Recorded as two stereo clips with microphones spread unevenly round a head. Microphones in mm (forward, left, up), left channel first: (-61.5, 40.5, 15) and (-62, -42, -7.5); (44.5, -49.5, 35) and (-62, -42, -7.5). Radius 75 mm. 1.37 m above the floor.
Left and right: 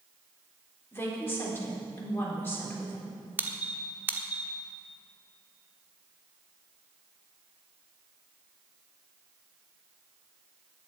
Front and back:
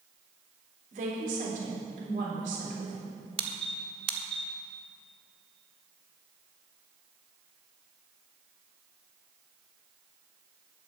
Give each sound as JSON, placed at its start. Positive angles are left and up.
{"t": 0.9, "sound": "a woman speaking", "azimuth_deg": 150, "distance_m": 4.0}
{"t": 3.4, "sound": "a squeak", "azimuth_deg": -165, "distance_m": 1.0}